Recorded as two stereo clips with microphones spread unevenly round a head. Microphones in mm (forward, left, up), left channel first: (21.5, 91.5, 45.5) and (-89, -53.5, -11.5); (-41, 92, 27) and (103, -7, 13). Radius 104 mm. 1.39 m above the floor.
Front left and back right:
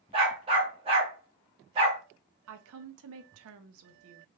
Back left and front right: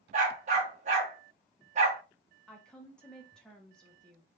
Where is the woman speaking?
130° right, 0.5 m.